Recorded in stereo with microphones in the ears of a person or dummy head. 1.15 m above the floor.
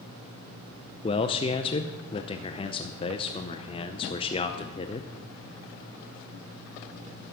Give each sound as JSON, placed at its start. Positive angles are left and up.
{"t": 1.0, "sound": "a man speaking", "side_deg": 30, "distance_m": 0.6}